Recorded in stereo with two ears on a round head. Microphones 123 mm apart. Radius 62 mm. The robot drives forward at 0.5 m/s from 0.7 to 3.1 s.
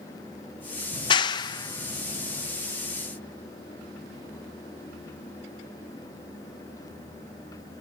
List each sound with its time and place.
0.9 s a clap: 35° left (ahead or behind); by 2.5 s 20° left (ahead or behind)